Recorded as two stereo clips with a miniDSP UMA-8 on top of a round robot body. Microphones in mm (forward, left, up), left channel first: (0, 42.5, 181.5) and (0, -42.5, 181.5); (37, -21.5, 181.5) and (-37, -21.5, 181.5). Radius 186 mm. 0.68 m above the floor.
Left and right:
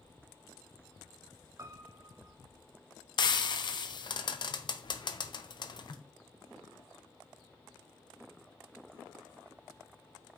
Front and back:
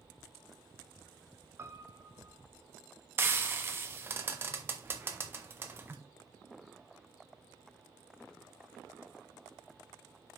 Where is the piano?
130° right, 0.9 m.